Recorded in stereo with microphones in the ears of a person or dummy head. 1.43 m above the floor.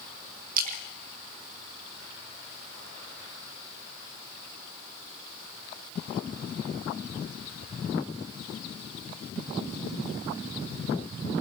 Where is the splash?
50° right (ahead or behind), 2 m.